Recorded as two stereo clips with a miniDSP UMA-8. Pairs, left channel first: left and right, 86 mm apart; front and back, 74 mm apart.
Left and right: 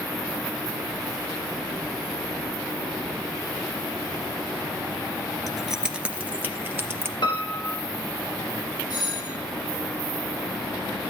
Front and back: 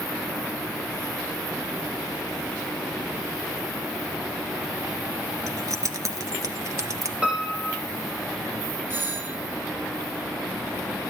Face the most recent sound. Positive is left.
turn(degrees=120)